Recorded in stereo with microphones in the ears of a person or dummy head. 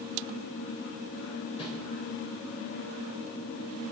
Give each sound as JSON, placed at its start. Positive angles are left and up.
{"t": 1.6, "sound": "a whoosh", "side_deg": 30, "distance_m": 5.5}